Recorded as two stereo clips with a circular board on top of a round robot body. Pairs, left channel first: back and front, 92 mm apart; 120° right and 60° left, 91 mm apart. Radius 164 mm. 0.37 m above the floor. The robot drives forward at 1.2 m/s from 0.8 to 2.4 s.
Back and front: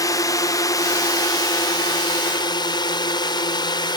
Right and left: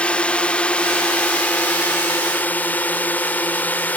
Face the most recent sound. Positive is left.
turn(degrees=175)